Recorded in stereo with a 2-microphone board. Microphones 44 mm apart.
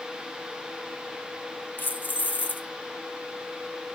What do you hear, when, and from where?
1.8 s keys jangling: 45° left (ahead or behind), 0.8 m